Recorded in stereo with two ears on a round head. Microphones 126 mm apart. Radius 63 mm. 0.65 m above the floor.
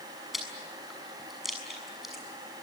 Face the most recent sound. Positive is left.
turn(degrees=0)  # may be behind; listen again after turning